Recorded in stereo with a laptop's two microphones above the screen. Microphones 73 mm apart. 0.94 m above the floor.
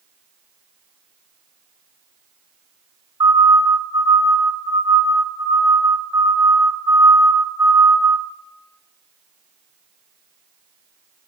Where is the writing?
No writing in this recording.